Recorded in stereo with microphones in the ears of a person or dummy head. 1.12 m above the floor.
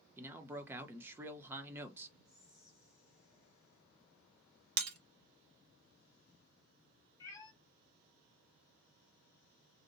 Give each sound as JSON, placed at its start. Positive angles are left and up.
{"t": 0.2, "sound": "a man speaking", "side_deg": -10, "distance_m": 0.7}
{"t": 2.2, "sound": "whispering", "side_deg": -20, "distance_m": 1.1}
{"t": 4.8, "sound": "breaking glass", "side_deg": -70, "distance_m": 1.0}
{"t": 7.2, "sound": "a cat meowing", "side_deg": 20, "distance_m": 1.1}